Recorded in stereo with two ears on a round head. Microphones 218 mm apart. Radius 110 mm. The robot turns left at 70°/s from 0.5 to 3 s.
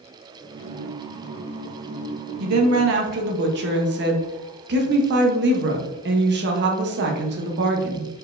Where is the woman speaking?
90° right, 1.0 m; by 8.2 s 135° right, 1.0 m.